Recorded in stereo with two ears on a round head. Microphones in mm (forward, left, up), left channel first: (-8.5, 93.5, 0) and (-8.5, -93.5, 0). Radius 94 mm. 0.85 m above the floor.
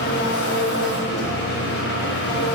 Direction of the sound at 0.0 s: 55° left (ahead or behind).